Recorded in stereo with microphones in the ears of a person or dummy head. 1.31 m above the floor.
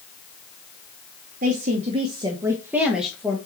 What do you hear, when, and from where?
1.4 s a woman speaking: 50° right (ahead or behind), 1.1 m; by 3.4 s 5° left (ahead or behind), 1.4 m